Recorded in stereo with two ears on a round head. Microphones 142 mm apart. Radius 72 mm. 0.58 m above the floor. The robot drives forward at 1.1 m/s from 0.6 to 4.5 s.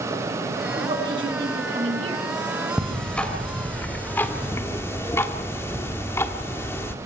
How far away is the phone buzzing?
No phone buzzing in this recording.